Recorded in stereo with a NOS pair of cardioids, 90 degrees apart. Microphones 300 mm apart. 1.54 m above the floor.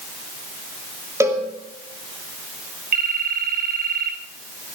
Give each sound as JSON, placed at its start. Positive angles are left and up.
{"t": 1.2, "sound": "a cowbell", "azimuth_deg": -10, "distance_m": 6.0}
{"t": 2.9, "sound": "a phone ringing", "azimuth_deg": -35, "distance_m": 5.5}